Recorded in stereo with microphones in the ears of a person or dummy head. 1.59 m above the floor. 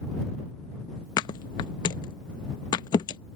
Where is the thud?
25° left (ahead or behind).